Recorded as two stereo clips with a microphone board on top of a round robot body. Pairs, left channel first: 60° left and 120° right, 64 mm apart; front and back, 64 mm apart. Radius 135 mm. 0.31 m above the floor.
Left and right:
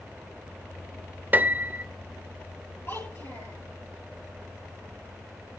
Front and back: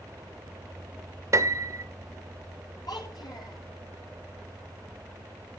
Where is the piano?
175° right, 1.0 m.